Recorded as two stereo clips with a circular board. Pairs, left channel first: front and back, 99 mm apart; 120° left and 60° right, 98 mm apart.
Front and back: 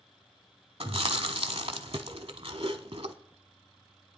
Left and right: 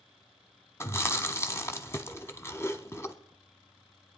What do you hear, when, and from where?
0.8 s chewing: 175° right, 0.8 m